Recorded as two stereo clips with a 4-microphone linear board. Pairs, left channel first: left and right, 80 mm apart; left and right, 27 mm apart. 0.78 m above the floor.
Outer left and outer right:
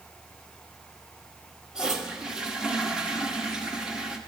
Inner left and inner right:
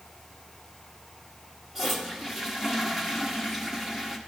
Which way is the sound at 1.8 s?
10° right (ahead or behind).